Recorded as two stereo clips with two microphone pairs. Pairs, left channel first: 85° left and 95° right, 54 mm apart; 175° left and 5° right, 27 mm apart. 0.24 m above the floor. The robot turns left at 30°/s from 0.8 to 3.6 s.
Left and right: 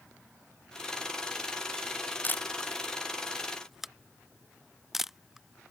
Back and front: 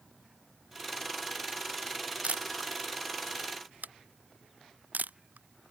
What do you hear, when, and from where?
2.2 s a camera shutter: 30° left; by 5.7 s 10° right